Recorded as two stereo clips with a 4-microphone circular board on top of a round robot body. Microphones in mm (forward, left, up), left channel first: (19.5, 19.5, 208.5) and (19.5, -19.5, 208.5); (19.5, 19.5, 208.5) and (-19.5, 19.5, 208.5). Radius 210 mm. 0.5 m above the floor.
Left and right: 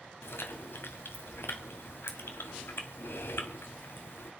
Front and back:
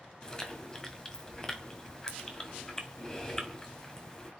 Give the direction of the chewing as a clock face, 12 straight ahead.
10 o'clock.